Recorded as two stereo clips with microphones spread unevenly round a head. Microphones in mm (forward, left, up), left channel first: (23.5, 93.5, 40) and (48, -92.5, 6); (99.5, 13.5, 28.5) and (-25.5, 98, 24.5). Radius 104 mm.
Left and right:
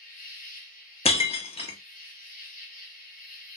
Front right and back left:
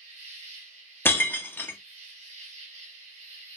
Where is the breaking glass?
45° left, 0.6 m.